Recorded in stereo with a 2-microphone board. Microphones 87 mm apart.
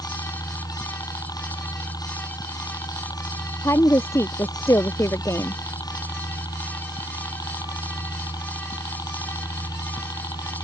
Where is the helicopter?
50° left (ahead or behind).